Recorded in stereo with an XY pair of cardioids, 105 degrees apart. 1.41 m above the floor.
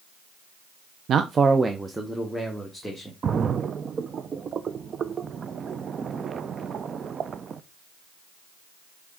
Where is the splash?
45° right, 0.6 m.